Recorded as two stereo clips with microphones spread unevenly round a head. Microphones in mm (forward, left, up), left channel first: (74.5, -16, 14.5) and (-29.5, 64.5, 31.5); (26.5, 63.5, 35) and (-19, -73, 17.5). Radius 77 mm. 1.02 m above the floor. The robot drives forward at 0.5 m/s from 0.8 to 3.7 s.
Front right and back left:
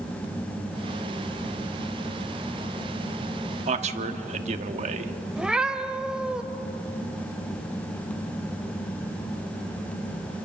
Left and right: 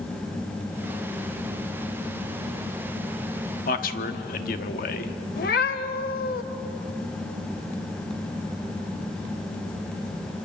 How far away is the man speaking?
About 1.6 m.